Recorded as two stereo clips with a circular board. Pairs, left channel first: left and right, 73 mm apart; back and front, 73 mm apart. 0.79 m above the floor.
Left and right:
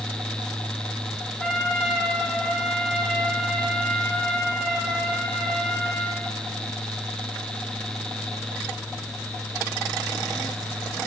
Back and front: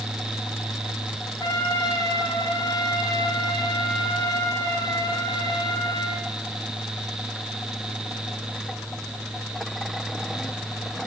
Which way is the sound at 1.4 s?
175° left.